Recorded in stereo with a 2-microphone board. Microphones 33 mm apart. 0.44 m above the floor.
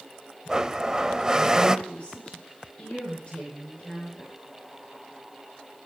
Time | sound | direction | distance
0.5 | a blender | 20° right (ahead or behind) | 0.6 m
1.9 | a woman speaking | 40° left (ahead or behind) | 6.5 m